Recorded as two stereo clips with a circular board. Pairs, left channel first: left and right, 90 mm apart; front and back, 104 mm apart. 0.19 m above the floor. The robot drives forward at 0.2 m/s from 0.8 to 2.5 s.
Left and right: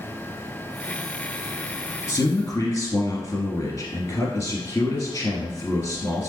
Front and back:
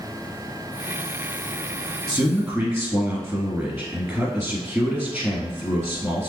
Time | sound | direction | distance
2.1 | a man speaking | 115° left | 1.4 m